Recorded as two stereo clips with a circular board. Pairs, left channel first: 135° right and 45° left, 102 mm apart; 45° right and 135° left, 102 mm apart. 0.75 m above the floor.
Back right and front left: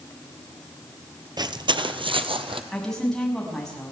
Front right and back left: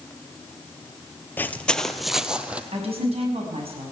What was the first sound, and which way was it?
Footsteps, 20° left.